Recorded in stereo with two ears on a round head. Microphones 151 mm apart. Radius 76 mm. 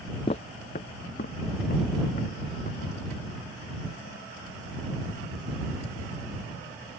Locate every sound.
0.3 s footsteps: 35° left (ahead or behind); by 2.8 s 50° left (ahead or behind)